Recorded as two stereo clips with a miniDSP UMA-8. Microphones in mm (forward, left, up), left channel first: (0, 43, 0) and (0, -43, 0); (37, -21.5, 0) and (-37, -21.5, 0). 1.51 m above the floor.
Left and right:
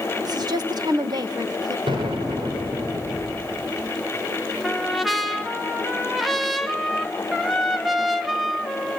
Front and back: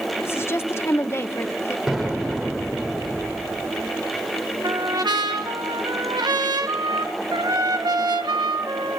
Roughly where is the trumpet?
Behind.